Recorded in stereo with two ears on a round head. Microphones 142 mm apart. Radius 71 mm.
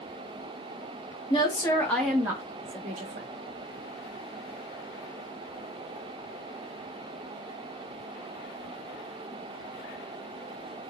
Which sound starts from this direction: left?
A woman speaking, at 1.3 s.